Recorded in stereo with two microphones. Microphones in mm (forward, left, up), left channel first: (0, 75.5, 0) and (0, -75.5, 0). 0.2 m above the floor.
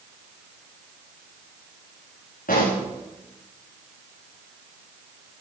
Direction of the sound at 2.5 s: 65° left (ahead or behind).